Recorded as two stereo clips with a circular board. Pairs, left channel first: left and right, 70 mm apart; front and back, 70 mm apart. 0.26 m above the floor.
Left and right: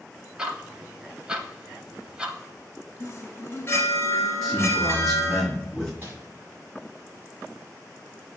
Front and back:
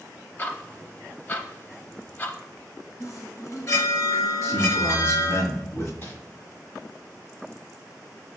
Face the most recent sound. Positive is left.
turn(degrees=-30)